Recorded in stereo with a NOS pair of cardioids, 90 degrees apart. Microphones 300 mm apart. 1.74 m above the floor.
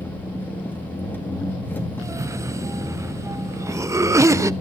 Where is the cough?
10° right, 0.6 m.